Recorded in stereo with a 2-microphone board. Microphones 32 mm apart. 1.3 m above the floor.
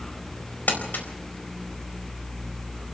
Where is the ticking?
I don't hear ticking.